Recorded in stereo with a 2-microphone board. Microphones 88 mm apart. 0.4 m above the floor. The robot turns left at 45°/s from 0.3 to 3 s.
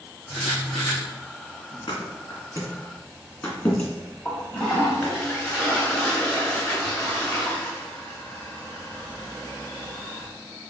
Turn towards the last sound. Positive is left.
turn(degrees=10)  # may be behind; listen again after turning